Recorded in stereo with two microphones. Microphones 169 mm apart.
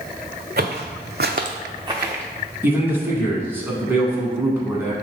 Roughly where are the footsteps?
Right.